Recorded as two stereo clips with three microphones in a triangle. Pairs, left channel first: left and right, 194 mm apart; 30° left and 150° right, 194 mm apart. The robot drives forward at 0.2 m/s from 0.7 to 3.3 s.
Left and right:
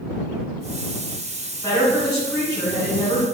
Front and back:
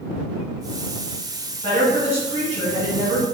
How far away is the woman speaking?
About 1.9 m.